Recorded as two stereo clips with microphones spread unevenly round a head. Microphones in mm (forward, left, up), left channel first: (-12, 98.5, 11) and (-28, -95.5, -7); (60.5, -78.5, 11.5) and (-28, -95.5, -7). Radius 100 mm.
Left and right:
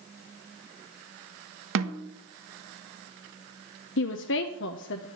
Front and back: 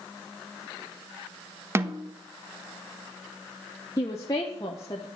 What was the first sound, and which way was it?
A snare drum, 110° right.